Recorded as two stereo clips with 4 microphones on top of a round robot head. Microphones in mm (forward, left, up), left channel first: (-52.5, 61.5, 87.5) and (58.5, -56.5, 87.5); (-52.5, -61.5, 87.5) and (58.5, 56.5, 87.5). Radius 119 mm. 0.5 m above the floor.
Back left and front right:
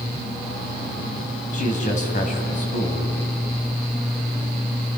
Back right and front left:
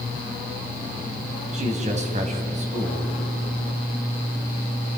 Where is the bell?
No bell in this recording.